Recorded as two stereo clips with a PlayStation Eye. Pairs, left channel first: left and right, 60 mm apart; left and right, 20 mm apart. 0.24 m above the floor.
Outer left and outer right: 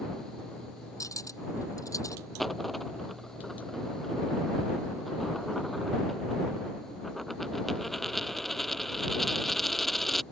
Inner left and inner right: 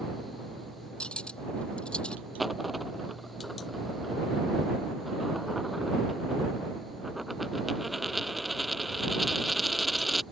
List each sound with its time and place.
1.0 s cutlery clinking: 70° left (ahead or behind)
2.4 s a dropped coin: centre (ahead or behind)